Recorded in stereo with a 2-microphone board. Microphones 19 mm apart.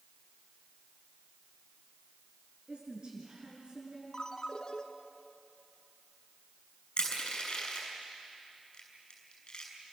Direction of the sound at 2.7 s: 45° right (ahead or behind).